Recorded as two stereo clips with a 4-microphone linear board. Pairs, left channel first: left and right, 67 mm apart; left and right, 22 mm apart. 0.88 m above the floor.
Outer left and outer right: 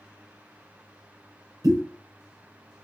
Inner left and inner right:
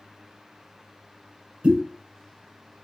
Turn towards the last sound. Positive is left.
turn(degrees=-60)  # may be behind; listen again after turning